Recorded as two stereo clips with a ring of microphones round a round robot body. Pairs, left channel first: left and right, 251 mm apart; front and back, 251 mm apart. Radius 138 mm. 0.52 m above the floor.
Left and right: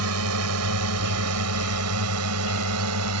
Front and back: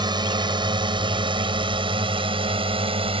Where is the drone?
110° right; by 3.2 s 115° right.